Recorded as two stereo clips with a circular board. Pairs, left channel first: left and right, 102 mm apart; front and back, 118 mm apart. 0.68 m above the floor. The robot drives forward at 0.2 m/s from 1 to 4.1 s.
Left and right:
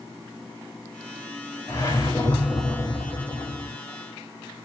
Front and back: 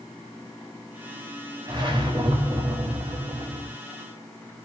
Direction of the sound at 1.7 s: 140° left.